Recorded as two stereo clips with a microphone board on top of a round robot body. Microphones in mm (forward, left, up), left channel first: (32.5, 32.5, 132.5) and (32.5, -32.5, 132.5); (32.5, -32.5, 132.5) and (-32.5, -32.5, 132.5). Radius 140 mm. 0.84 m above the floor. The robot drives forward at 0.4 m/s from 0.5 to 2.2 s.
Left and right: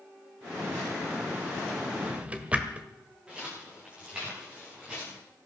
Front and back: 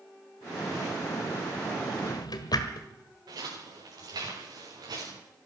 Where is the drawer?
15° right, 1.6 m; by 2.9 s 20° right, 1.5 m.